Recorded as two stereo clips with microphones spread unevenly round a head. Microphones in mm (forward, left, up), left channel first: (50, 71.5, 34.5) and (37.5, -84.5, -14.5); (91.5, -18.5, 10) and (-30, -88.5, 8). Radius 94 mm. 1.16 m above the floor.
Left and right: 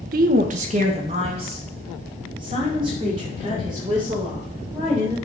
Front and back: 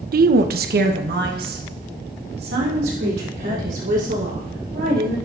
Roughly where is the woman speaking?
Behind right.